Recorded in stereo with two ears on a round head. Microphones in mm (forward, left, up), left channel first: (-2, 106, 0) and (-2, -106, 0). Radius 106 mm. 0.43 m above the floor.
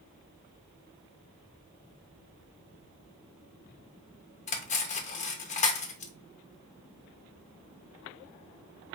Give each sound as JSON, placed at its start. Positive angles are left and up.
{"t": 4.5, "sound": "cutlery clinking", "side_deg": 30, "distance_m": 0.5}